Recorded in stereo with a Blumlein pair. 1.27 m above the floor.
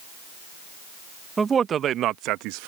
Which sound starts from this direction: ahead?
A man speaking, at 1.4 s.